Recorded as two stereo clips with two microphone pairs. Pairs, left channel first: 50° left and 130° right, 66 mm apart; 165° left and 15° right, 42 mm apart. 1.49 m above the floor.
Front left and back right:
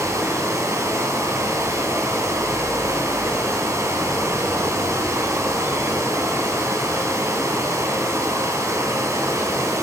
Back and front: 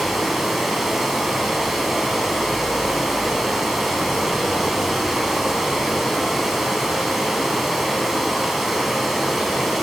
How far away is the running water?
About 3 m.